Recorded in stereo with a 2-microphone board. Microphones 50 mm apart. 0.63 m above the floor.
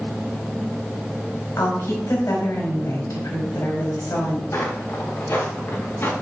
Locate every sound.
1.6 s a woman speaking: 75° left (ahead or behind), 4 m
4.5 s footsteps: 55° left (ahead or behind), 4.5 m; by 6.1 s 50° left (ahead or behind), 4 m